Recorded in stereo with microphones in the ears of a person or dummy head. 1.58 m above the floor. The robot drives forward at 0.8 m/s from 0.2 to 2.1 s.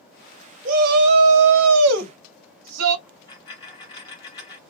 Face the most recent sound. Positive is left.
turn(degrees=20)  # may be behind; listen again after turning